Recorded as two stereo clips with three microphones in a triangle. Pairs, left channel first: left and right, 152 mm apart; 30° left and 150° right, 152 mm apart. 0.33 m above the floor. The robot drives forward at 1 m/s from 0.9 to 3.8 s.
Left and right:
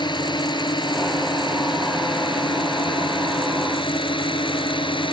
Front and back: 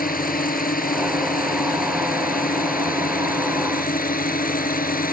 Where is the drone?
30° left; by 5.1 s 35° left.